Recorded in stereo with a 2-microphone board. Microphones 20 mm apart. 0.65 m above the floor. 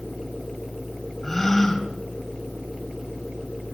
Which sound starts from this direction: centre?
A gasp, at 1.2 s.